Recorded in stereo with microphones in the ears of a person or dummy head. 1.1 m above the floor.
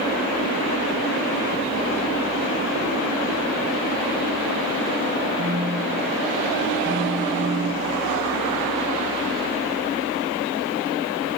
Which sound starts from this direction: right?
A phone buzzing, at 5.4 s.